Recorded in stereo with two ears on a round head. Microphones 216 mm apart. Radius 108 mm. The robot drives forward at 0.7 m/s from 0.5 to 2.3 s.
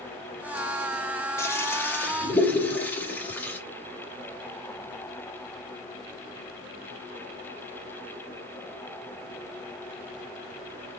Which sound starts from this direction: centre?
A toilet flushing, at 1.4 s.